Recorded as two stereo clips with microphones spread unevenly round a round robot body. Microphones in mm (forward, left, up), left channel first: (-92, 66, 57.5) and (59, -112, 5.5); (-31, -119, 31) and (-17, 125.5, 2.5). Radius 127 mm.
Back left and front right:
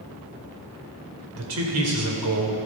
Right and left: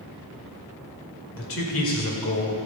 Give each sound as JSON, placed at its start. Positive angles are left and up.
{"t": 1.4, "sound": "a man speaking", "azimuth_deg": -50, "distance_m": 2.5}